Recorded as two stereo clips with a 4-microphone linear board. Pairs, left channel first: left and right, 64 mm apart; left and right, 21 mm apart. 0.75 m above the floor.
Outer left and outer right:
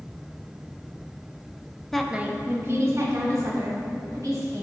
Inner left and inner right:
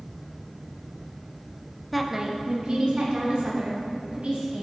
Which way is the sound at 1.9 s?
5° left (ahead or behind).